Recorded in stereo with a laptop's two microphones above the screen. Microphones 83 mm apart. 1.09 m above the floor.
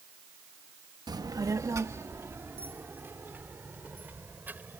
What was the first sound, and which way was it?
A child speaking, 55° right (ahead or behind).